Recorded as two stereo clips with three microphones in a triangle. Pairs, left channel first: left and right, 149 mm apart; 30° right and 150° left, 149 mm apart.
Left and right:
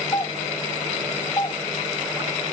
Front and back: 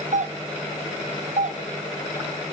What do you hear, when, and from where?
0.1 s a doorbell: 145° left, 0.5 m